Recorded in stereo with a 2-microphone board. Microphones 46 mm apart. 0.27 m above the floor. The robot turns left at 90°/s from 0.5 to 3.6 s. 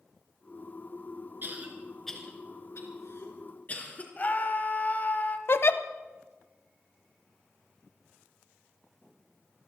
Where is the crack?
I don't hear a crack.